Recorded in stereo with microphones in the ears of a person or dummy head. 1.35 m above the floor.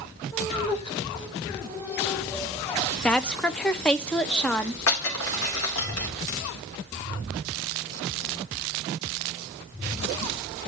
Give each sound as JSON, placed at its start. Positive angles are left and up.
{"t": 0.3, "sound": "laughter", "side_deg": 30, "distance_m": 6.0}
{"t": 3.0, "sound": "a woman speaking", "side_deg": 10, "distance_m": 0.6}
{"t": 4.9, "sound": "breaking glass", "side_deg": 85, "distance_m": 3.0}